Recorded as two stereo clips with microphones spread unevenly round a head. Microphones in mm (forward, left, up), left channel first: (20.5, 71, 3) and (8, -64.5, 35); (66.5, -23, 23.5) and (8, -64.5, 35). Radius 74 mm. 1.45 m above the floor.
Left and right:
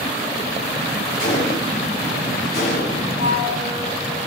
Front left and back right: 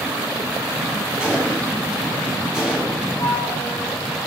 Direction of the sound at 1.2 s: 120° left.